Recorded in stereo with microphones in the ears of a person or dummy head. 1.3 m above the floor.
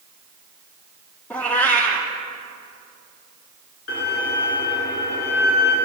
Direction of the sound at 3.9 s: 70° left (ahead or behind).